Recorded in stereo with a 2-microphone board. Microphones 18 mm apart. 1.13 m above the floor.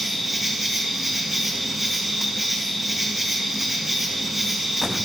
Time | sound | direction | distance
0.0 | an insect | 10° right (ahead or behind) | 1.8 m